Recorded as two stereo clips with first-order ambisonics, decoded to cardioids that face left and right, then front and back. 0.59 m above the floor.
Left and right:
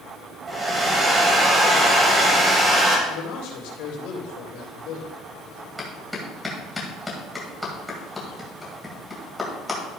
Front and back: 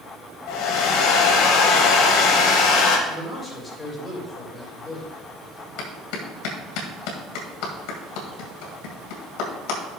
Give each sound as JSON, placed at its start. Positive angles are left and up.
{"t": 0.5, "sound": "a hair dryer", "azimuth_deg": -20, "distance_m": 1.9}
{"t": 3.1, "sound": "a man speaking", "azimuth_deg": 75, "distance_m": 3.0}
{"t": 5.8, "sound": "a clap", "azimuth_deg": 5, "distance_m": 2.0}